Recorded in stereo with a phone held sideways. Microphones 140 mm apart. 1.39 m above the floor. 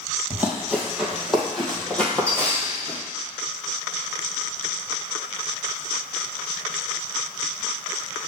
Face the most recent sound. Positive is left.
turn(degrees=20)  # may be behind; listen again after turning